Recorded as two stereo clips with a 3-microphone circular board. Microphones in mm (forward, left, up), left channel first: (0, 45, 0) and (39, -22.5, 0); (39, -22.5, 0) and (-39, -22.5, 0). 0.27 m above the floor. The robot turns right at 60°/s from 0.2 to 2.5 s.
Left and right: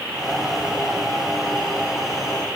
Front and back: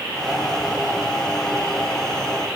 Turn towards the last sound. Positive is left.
No sound to turn to.